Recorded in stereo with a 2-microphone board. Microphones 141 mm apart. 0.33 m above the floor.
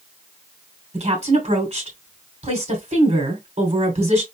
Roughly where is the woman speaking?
Right.